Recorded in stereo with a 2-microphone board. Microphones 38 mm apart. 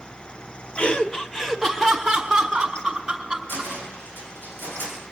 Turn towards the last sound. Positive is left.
turn(degrees=65)  # may be behind; listen again after turning